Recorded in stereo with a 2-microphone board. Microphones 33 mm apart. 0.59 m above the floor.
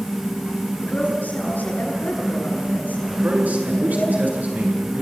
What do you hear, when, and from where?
0.8 s a woman speaking: 60° left (ahead or behind), 9 m
3.1 s a man speaking: 60° right (ahead or behind), 7.5 m